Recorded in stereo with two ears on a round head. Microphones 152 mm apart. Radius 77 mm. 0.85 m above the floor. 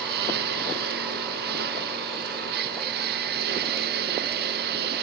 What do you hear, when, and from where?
0.0 s a lawn mower: 60° right (ahead or behind)